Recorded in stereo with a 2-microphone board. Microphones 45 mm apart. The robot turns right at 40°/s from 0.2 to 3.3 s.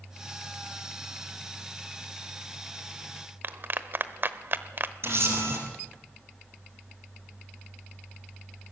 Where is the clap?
50° right (ahead or behind), 0.9 m.